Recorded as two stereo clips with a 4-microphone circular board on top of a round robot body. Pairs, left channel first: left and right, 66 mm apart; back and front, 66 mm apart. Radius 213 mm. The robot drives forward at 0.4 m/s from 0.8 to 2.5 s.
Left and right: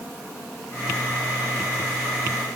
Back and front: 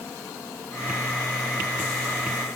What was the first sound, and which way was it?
Only background noise.